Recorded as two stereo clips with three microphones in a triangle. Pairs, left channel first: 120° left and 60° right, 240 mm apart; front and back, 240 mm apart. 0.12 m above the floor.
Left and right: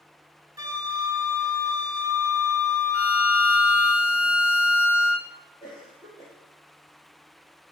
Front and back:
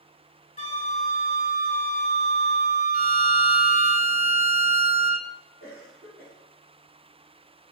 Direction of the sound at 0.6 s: Straight ahead.